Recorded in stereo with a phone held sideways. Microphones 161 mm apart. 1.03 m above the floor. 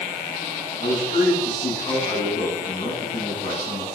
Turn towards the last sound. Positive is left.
turn(degrees=50)  # may be behind; listen again after turning